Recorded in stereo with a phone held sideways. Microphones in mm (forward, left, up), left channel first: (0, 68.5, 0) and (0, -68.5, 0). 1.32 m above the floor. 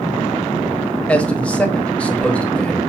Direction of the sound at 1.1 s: 10° left (ahead or behind).